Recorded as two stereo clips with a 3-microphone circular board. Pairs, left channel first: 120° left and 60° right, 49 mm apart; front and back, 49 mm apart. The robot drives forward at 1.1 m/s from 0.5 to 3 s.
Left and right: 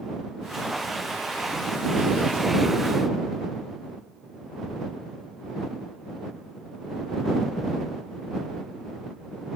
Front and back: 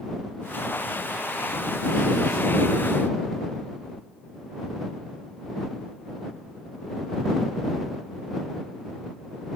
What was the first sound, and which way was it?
Only background noise.